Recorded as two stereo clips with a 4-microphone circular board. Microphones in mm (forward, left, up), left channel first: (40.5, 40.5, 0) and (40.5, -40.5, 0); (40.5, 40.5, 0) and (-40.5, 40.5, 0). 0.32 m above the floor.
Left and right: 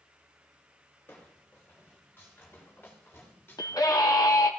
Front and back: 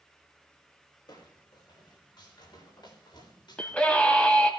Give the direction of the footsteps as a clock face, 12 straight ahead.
11 o'clock.